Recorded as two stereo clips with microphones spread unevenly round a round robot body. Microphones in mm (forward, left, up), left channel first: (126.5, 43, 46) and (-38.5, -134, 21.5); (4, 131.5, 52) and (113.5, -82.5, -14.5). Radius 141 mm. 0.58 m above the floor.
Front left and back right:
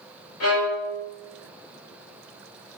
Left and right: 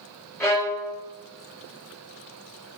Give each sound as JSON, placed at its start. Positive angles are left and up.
{"t": 0.4, "sound": "a violin", "azimuth_deg": 35, "distance_m": 4.5}